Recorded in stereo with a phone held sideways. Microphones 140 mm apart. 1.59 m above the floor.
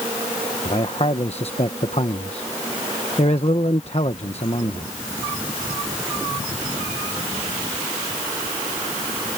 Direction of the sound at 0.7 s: 50° left (ahead or behind).